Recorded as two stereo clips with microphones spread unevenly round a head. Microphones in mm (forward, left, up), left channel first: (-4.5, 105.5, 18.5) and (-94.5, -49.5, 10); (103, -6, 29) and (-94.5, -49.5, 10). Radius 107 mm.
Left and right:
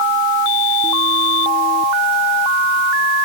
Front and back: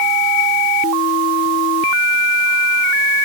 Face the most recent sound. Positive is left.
No sound to turn to.